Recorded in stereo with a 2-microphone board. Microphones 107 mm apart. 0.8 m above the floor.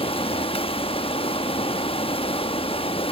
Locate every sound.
0.0 s running water: 60° left (ahead or behind), 0.8 m